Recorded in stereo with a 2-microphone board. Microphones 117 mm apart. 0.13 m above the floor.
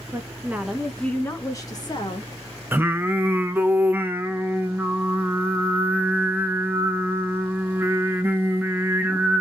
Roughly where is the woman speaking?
Right.